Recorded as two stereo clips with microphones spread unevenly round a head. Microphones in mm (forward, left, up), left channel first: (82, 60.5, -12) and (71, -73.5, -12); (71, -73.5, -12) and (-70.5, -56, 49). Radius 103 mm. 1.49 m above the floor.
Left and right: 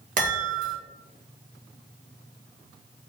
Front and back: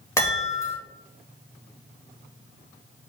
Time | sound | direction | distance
0.2 | a chime | 80° right | 1.7 m